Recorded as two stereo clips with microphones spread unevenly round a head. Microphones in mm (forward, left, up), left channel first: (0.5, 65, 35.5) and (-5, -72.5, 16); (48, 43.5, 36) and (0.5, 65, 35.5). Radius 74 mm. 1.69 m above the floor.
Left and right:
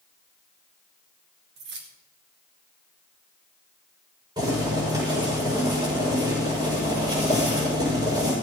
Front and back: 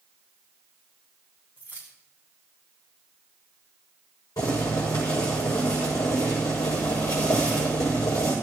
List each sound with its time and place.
1.6 s keys jangling: 100° right, 2.5 m
4.4 s boiling: 30° right, 7 m